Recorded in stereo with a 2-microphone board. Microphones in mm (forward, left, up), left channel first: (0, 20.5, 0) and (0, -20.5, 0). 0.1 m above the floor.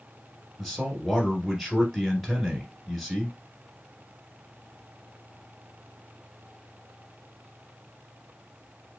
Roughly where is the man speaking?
Centre.